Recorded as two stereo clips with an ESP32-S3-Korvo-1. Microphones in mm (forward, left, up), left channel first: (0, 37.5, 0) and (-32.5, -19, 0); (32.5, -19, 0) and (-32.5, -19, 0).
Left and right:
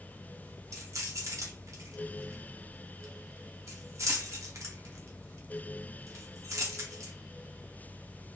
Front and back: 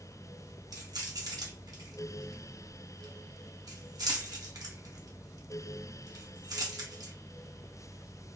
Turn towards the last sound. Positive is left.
turn(degrees=-160)